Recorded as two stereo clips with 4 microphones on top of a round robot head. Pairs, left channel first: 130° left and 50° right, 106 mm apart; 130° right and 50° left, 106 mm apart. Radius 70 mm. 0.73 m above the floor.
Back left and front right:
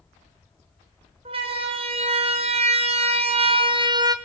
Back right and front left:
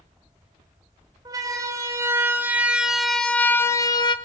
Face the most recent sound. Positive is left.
turn(degrees=-95)